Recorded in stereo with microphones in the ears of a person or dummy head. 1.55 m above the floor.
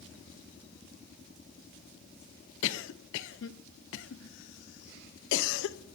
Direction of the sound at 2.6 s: 70° left (ahead or behind).